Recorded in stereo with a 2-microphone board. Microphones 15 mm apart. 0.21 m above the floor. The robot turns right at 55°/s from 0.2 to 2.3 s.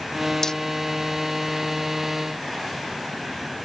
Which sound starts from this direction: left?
Hammering, at 0.4 s.